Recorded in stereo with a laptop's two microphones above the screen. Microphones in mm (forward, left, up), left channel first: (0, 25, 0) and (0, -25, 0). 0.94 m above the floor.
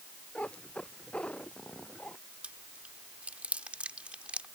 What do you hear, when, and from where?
0.3 s a cat meowing: 25° left (ahead or behind)
2.4 s chewing: 25° right (ahead or behind)